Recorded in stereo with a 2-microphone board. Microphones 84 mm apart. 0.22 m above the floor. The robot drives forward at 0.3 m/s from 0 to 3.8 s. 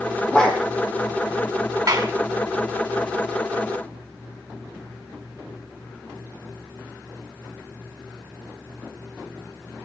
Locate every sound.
0.3 s a dog barking: 10° left (ahead or behind), 2 m
1.9 s a clap: 45° right (ahead or behind), 1.8 m